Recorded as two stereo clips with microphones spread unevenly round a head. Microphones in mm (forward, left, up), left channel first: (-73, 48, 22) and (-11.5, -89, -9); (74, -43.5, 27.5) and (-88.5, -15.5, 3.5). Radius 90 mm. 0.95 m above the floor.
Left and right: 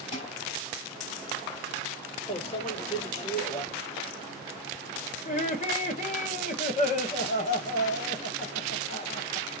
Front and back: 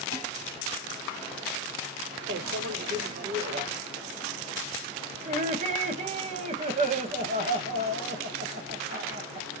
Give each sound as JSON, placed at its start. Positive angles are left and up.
{"t": 0.1, "sound": "dishes clattering", "azimuth_deg": 50, "distance_m": 3.0}
{"t": 2.3, "sound": "a microwave", "azimuth_deg": 170, "distance_m": 1.1}
{"t": 5.2, "sound": "laughter", "azimuth_deg": 150, "distance_m": 1.2}